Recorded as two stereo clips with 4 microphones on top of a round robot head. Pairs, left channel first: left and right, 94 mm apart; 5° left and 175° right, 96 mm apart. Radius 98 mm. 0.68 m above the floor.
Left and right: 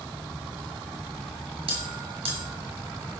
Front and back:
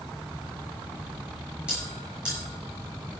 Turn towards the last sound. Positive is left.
turn(degrees=-95)